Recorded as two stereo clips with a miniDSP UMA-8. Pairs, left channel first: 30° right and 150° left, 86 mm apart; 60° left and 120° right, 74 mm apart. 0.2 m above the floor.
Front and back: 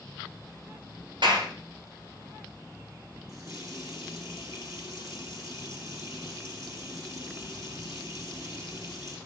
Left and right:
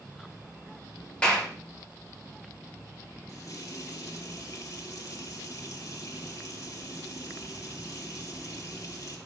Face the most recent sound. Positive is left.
turn(degrees=100)